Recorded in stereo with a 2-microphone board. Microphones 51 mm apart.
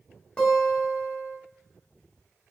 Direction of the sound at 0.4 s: 20° left (ahead or behind).